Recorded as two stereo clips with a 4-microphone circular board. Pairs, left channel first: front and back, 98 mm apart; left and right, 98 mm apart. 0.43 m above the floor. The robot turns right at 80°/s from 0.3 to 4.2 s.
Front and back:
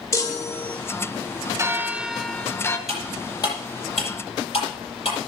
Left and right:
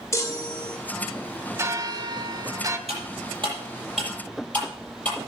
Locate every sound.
0.1 s a chime: 45° left, 1.7 m; by 0.8 s 85° left, 1.7 m
1.6 s a bell: 140° right, 1.0 m; by 2.8 s 40° right, 1.0 m
2.9 s cutlery clinking: 95° right, 8 m; by 5.2 s 15° left, 8 m